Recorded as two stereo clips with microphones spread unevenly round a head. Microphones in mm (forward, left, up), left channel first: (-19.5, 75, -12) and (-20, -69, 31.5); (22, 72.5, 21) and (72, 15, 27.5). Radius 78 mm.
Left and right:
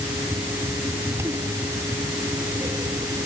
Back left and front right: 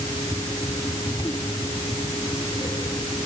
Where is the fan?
160° right.